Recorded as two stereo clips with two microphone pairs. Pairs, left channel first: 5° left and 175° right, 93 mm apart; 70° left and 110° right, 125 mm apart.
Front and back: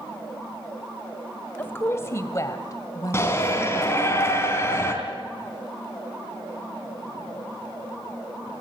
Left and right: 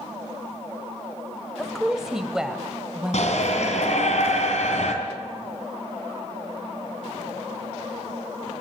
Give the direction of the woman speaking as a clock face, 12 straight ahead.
1 o'clock.